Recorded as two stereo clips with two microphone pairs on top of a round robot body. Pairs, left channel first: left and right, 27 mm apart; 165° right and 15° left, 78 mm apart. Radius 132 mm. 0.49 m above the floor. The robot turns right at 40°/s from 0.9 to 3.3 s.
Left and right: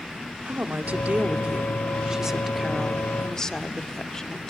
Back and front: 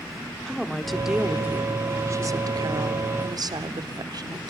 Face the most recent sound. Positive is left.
turn(degrees=20)